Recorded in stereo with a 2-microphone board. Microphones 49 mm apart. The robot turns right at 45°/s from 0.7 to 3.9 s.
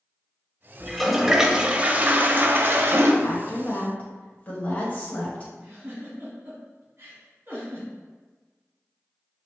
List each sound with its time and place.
0.8 s a toilet flushing: 170° left, 0.6 m; by 3.1 s 90° right, 0.6 m
3.2 s a woman speaking: 115° left, 1.5 m; by 5.5 s 145° left, 1.5 m
5.6 s a giggle: 45° right (ahead or behind), 1.7 m